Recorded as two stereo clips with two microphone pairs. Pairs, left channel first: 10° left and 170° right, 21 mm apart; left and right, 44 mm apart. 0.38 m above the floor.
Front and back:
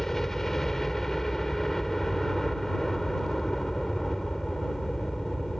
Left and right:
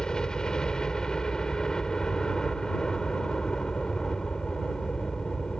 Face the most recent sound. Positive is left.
turn(degrees=50)